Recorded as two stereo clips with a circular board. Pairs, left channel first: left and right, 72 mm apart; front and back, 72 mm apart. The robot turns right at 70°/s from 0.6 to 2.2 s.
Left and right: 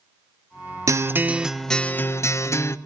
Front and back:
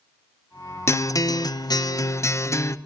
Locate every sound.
0.9 s a guitar: 50° right, 0.7 m; by 2.8 s 45° left, 0.7 m